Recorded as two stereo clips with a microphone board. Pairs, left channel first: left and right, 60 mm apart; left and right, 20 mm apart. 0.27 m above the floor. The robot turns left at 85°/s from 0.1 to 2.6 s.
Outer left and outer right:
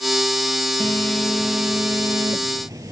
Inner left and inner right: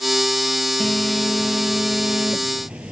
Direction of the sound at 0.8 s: 50° left.